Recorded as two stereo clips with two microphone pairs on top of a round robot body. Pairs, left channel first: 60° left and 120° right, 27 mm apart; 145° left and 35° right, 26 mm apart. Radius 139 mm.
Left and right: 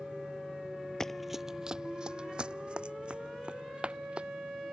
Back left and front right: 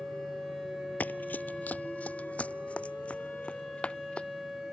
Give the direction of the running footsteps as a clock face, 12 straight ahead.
8 o'clock.